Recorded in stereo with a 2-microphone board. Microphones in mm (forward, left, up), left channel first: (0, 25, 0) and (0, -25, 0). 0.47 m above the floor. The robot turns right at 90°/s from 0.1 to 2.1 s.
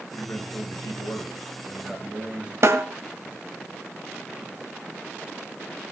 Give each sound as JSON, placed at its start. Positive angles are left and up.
{"t": 0.1, "sound": "a man speaking", "azimuth_deg": 20, "distance_m": 8.0}
{"t": 2.6, "sound": "a snare drum", "side_deg": -60, "distance_m": 2.0}